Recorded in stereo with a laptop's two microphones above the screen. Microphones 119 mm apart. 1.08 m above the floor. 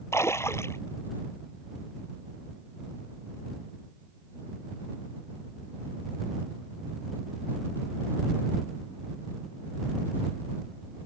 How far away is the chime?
I don't hear a chime.